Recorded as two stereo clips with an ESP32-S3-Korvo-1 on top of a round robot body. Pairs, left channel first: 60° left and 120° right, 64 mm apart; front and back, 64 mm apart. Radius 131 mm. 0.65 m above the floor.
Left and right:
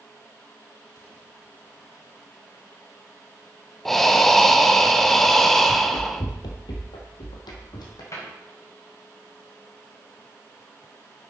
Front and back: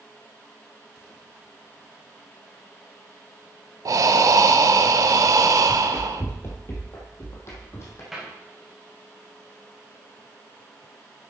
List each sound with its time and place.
3.9 s breathing: 145° left, 0.7 m
5.7 s running footsteps: 70° left, 0.7 m; by 8.0 s 50° left, 2 m
8.1 s a cupboard door: 95° left, 4 m